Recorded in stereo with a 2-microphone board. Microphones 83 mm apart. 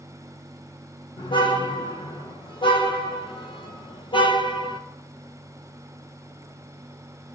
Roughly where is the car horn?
Left.